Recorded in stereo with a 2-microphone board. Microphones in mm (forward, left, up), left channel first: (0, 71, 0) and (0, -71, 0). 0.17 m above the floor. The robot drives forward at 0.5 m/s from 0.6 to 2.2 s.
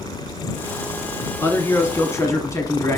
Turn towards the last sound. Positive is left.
turn(degrees=20)  # may be behind; listen again after turning